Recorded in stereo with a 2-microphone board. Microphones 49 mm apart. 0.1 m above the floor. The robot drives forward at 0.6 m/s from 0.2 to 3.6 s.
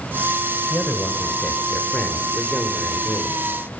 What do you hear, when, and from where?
0.7 s a man speaking: 20° left (ahead or behind), 1.8 m; by 3.4 s 15° left (ahead or behind), 2.5 m